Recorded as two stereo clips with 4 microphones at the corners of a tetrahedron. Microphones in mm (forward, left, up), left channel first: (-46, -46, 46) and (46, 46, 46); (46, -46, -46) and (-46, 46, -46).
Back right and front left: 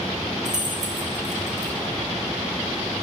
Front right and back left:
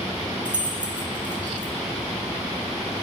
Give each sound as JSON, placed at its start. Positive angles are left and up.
{"t": 0.5, "sound": "keys jangling", "azimuth_deg": 55, "distance_m": 1.3}